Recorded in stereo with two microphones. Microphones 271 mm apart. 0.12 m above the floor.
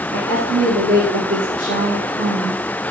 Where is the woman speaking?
60° right (ahead or behind), 6 m.